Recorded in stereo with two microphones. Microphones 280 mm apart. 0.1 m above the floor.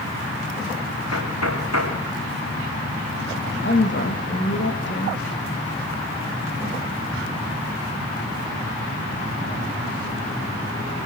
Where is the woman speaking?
45° left (ahead or behind), 5.5 m.